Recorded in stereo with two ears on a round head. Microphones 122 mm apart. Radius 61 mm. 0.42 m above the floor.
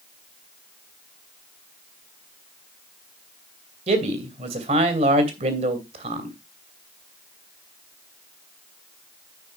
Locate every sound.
3.9 s a man speaking: 50° right (ahead or behind), 2.5 m